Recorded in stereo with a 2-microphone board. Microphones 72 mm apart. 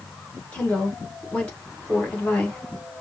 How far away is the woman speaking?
About 1.9 m.